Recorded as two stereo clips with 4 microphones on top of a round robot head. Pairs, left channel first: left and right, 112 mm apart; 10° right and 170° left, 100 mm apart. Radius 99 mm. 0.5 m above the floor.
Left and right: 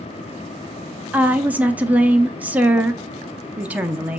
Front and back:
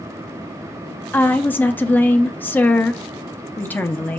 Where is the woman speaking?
40° right, 0.7 m.